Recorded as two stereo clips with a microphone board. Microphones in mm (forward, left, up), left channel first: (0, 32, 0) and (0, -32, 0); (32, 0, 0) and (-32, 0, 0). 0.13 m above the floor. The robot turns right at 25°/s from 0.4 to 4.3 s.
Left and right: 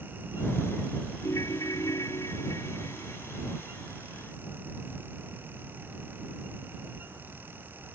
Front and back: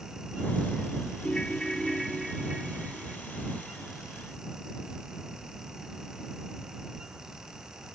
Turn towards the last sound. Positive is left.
turn(degrees=145)